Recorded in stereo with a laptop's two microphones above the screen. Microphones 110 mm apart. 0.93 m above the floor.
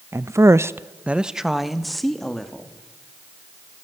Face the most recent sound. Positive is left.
turn(degrees=5)  # may be behind; listen again after turning